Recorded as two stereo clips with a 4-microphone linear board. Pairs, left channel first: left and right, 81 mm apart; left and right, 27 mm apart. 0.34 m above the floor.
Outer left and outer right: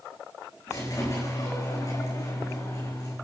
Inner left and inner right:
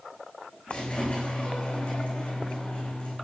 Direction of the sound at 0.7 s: 50° left (ahead or behind).